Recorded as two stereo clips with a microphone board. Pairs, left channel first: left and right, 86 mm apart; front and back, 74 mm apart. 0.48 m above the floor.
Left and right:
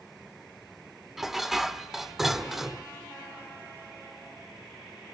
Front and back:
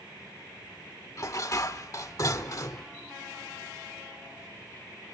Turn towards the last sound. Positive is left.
turn(degrees=-5)